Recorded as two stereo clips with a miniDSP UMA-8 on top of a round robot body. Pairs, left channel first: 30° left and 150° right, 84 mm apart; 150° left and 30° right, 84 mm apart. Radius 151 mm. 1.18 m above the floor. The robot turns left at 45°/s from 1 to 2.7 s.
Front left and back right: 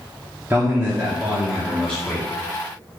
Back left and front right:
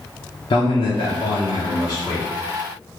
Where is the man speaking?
140° left, 0.8 m; by 2.3 s 85° left, 0.8 m.